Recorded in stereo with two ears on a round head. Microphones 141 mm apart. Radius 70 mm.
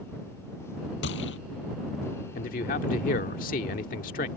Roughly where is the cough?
I don't hear a cough.